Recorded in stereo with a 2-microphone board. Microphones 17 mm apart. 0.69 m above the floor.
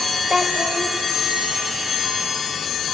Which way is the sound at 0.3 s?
20° right (ahead or behind).